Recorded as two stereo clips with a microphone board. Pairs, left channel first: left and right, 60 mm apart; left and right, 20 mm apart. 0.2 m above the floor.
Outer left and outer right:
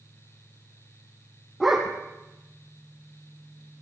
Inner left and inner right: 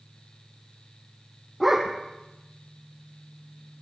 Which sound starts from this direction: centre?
A dog barking, at 1.6 s.